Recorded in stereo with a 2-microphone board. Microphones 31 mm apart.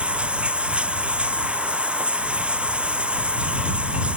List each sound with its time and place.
0.0 s running water: 40° right (ahead or behind)